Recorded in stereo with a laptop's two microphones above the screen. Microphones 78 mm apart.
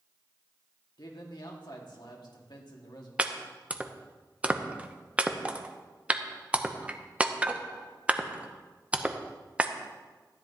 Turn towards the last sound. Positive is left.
turn(degrees=-15)  # may be behind; listen again after turning